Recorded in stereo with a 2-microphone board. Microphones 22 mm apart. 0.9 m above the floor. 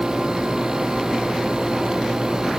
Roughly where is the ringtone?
No ringtone in this recording.